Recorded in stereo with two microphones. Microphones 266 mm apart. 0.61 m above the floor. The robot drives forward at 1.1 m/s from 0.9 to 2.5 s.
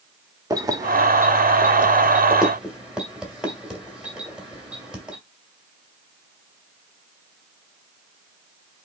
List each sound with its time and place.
0.5 s keys jangling: 15° right (ahead or behind), 0.6 m; by 5.2 s 5° right (ahead or behind), 2 m